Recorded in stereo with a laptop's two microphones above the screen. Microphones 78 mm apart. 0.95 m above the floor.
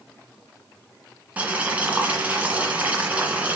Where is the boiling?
15° right (ahead or behind), 2.5 m.